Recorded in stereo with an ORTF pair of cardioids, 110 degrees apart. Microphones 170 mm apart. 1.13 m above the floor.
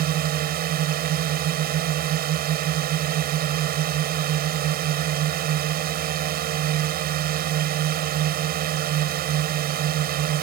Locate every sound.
0.0 s a drone: 65° right